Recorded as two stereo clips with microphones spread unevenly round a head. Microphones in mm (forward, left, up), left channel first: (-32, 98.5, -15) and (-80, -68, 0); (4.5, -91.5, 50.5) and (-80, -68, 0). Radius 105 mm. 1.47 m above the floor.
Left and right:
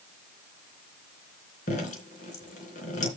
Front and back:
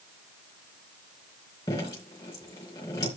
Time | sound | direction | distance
1.7 | dripping | 20° left | 3.5 m